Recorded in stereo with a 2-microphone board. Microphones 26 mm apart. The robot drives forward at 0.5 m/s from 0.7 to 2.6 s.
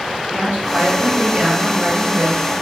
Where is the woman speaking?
85° right, 2.0 m; by 2.5 s 65° right (ahead or behind), 2 m.